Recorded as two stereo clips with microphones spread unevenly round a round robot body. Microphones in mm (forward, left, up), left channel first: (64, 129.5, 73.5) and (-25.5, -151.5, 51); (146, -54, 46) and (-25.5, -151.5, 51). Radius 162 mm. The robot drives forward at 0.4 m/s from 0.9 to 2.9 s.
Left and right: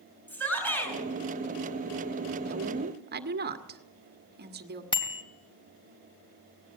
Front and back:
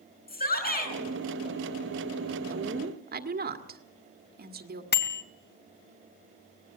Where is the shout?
10° right, 6.5 m.